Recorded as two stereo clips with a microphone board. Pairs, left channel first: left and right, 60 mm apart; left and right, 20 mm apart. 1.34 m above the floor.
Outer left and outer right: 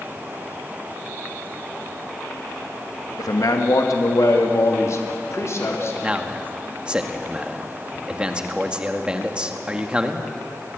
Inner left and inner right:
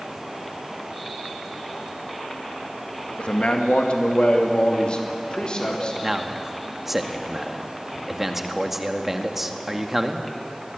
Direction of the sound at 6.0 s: 15° right (ahead or behind).